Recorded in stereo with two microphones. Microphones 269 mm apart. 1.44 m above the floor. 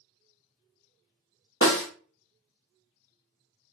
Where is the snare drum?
50° left (ahead or behind), 0.7 m.